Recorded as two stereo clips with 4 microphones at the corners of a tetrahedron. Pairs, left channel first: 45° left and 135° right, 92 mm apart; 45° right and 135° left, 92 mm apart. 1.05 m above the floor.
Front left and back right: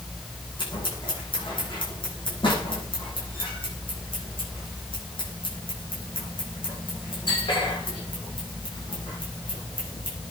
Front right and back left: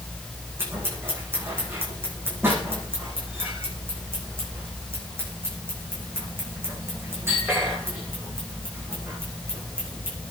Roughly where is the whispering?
I don't hear whispering.